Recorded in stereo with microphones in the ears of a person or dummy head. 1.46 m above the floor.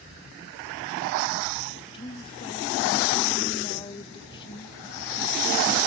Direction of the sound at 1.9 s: 25° left (ahead or behind).